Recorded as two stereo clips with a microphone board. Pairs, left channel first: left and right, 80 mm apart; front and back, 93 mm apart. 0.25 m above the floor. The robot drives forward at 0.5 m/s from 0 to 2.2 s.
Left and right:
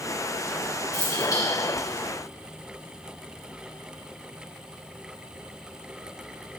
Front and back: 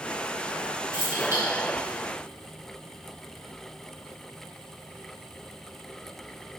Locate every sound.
0.9 s keys jangling: 120° left, 3 m; by 1.4 s 125° left, 3.5 m